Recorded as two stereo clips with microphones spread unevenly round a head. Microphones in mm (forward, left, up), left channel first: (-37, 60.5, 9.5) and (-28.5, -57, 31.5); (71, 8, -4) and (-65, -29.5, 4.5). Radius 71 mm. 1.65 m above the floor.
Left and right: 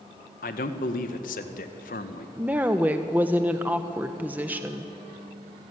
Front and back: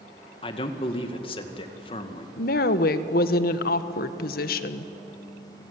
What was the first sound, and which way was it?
A man speaking, 70° left.